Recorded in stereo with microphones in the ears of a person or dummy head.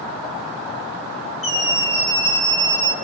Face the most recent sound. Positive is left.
turn(degrees=25)  # may be behind; listen again after turning